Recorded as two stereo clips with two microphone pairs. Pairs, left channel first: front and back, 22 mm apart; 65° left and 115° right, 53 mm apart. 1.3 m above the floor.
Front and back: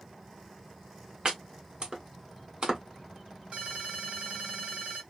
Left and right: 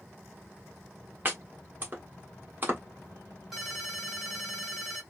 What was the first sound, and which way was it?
Chopping, 150° right.